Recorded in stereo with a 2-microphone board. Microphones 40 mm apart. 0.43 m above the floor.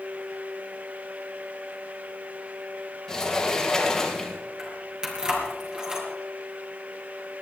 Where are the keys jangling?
15° right (ahead or behind), 4.5 m.